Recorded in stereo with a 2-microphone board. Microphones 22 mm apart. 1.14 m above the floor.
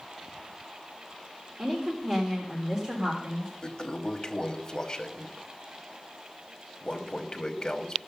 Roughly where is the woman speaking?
Right.